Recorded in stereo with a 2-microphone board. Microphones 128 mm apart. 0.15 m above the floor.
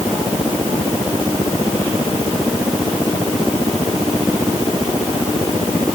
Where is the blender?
No blender in this recording.